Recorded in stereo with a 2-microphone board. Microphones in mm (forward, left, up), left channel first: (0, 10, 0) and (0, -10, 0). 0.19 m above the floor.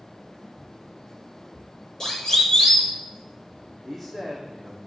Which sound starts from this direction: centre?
A man speaking, at 3.9 s.